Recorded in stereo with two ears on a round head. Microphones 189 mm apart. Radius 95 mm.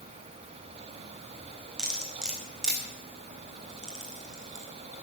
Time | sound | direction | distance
1.8 | cutlery clinking | 5° right (ahead or behind) | 4 m